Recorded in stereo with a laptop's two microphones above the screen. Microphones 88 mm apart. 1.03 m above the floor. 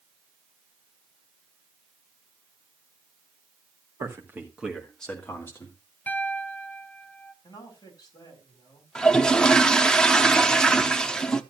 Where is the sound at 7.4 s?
45° left (ahead or behind), 4 m.